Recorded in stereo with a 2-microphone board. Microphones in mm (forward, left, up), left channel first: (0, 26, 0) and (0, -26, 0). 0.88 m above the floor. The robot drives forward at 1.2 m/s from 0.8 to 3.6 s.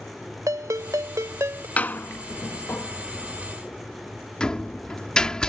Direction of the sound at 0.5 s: 75° right (ahead or behind).